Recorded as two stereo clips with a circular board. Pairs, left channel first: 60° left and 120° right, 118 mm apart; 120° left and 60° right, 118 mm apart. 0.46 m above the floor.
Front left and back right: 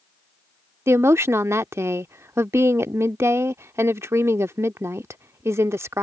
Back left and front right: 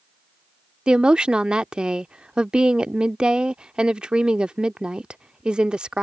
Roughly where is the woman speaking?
Behind right.